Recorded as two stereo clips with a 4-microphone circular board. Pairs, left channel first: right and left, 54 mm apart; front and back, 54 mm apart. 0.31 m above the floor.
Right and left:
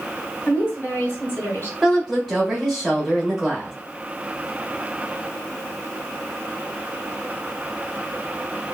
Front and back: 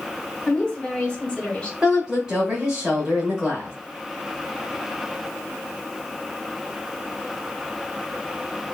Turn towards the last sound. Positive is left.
turn(degrees=180)